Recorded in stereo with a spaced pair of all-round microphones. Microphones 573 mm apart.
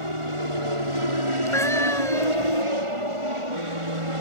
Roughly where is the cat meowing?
Centre.